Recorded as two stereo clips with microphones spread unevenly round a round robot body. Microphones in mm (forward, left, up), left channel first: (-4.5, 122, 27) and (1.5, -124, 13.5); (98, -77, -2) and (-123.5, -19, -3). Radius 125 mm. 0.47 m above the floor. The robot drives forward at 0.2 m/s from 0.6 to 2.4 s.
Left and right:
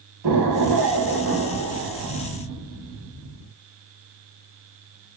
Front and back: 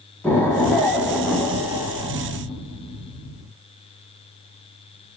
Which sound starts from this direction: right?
An explosion, at 0.2 s.